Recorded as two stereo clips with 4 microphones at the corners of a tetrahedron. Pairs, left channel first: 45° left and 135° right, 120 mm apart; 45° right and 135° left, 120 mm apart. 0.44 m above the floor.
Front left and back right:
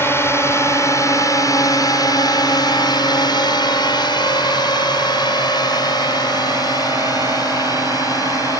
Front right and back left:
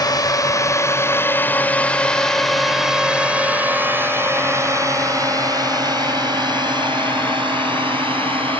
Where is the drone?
15° right; by 8.6 s 100° left.